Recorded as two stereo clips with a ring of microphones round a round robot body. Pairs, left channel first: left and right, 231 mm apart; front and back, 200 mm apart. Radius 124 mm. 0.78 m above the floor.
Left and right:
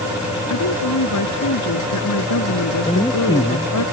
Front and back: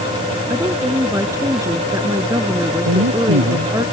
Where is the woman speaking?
105° left.